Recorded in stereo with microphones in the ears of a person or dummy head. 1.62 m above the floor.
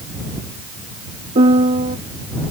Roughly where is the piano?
Right.